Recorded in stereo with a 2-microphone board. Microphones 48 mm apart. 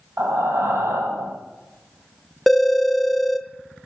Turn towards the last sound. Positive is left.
turn(degrees=5)  # may be behind; listen again after turning